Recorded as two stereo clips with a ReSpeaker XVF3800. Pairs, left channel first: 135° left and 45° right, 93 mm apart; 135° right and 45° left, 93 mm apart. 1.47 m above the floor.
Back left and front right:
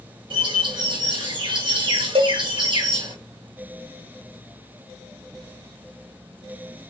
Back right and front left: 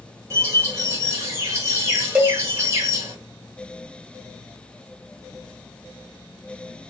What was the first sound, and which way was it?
A bird, 15° right.